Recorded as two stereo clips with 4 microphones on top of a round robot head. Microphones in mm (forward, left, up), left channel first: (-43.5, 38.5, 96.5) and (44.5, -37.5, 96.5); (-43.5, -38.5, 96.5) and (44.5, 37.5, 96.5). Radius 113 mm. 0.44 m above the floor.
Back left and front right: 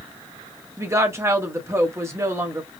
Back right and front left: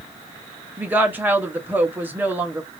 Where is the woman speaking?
10° right, 1.0 m.